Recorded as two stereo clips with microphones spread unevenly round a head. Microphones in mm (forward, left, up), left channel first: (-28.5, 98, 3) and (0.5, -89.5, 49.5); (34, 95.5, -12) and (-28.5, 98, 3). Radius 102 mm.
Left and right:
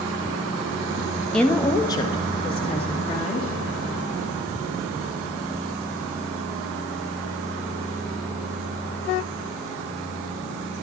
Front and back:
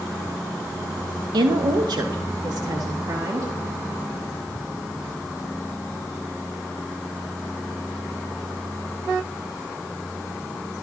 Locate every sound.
1.3 s a woman speaking: straight behind, 0.8 m; by 3.5 s 155° left, 2.0 m